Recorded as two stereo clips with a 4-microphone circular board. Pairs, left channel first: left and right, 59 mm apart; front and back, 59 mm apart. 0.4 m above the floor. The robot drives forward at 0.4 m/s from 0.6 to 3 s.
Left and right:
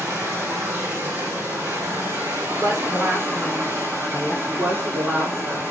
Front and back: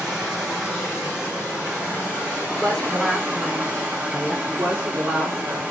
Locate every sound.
0.0 s running water: 105° right, 3.5 m; by 5.7 s 120° right, 4 m
2.5 s a woman speaking: 90° right, 5 m; by 4.3 s 95° right, 5 m
4.4 s a woman speaking: 140° right, 4 m